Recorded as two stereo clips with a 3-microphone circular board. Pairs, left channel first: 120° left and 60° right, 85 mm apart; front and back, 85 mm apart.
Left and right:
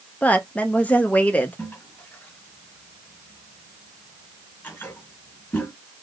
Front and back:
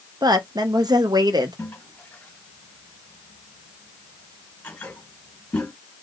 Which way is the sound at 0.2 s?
175° right.